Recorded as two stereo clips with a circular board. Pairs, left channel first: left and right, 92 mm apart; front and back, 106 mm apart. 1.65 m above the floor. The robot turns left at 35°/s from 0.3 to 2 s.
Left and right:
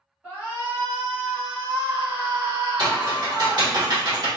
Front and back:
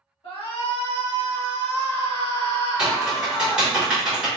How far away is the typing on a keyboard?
About 1.3 m.